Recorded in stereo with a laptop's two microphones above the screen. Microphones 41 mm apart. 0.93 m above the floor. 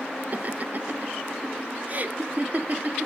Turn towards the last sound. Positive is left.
turn(degrees=-40)  # may be behind; listen again after turning